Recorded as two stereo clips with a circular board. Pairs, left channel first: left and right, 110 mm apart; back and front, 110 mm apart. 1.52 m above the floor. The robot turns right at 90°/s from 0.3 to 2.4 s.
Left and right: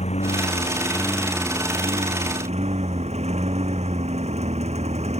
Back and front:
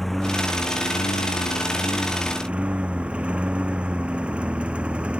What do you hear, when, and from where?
0.0 s a lawn mower: 90° left; by 5.2 s 80° right